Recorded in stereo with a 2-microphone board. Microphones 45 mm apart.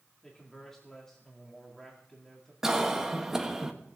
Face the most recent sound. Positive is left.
turn(degrees=-10)  # may be behind; listen again after turning